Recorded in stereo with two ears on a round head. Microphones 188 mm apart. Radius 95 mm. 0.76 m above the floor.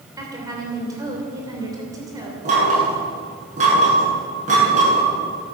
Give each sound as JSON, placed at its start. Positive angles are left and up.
{"t": 0.2, "sound": "a woman speaking", "side_deg": -15, "distance_m": 3.0}
{"t": 2.5, "sound": "knocking", "side_deg": -35, "distance_m": 8.0}